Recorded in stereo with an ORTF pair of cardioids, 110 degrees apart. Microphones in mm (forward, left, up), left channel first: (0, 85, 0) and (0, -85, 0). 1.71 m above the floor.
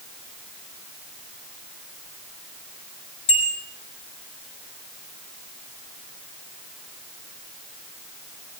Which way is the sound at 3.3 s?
40° left.